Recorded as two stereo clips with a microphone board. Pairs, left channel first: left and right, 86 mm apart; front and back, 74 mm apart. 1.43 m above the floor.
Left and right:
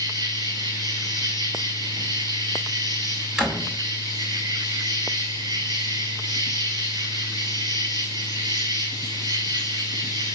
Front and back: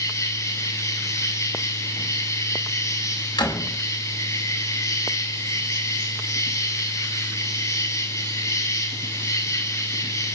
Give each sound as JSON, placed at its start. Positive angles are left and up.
{"t": 0.0, "sound": "an insect", "azimuth_deg": -50, "distance_m": 8.0}
{"t": 3.4, "sound": "a door slam", "azimuth_deg": -5, "distance_m": 6.0}